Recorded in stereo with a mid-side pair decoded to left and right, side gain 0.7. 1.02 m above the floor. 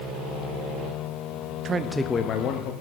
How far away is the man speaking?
About 0.7 m.